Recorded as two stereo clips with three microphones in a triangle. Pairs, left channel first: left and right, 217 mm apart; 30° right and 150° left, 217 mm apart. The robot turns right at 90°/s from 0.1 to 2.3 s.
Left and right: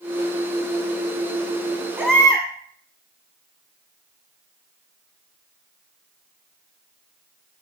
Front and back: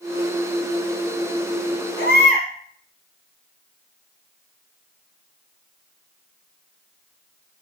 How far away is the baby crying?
About 1.5 m.